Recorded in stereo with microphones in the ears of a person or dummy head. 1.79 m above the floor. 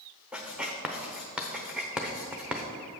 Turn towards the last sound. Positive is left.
turn(degrees=0)  # may be behind; listen again after turning